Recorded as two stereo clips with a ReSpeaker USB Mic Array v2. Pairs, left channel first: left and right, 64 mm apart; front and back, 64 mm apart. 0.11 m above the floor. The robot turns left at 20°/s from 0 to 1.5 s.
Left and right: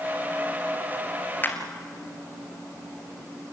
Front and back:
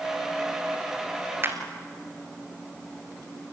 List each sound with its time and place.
1.4 s a clap: 140° left, 2 m